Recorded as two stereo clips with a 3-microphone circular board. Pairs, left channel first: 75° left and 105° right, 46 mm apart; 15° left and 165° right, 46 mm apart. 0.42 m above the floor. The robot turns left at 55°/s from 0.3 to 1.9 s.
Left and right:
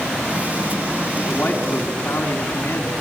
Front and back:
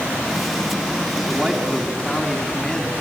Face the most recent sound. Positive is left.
turn(degrees=100)